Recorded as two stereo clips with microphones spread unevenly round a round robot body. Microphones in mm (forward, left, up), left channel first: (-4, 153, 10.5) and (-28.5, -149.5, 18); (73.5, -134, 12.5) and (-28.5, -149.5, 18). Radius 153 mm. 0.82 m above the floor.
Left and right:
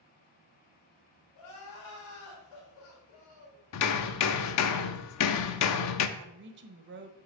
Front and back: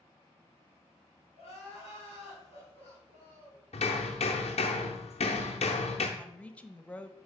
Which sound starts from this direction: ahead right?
A woman speaking, at 6.2 s.